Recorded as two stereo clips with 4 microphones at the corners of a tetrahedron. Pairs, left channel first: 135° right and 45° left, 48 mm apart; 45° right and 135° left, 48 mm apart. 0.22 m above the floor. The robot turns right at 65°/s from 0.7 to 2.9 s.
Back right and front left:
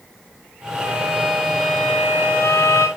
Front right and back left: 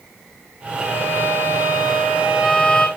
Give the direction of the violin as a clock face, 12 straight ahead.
9 o'clock.